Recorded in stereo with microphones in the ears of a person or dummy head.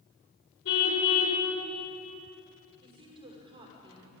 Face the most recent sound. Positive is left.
turn(degrees=-30)  # may be behind; listen again after turning